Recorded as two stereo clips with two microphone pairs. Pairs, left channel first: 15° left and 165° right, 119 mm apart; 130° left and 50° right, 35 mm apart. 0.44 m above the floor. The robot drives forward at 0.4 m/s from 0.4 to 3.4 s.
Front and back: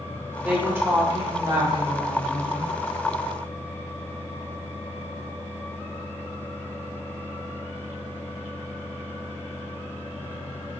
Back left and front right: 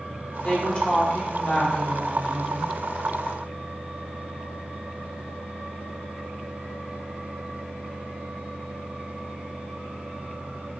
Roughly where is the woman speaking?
Behind left.